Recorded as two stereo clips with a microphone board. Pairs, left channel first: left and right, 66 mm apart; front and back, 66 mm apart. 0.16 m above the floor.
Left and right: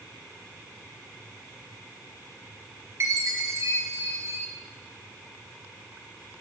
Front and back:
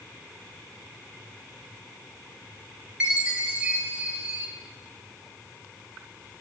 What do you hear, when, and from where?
3.0 s a chime: 110° right, 2 m